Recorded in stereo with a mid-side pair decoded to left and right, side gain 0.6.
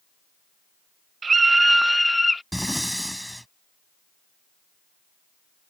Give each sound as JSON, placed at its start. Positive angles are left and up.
{"t": 1.2, "sound": "a scream", "azimuth_deg": -30}
{"t": 2.5, "sound": "breathing", "azimuth_deg": 0}